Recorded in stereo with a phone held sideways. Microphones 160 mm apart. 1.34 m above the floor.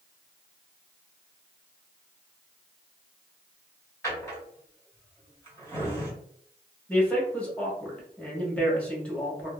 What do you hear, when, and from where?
4.0 s a drawer: 15° left (ahead or behind), 1.4 m
6.9 s a man speaking: 5° left (ahead or behind), 1.3 m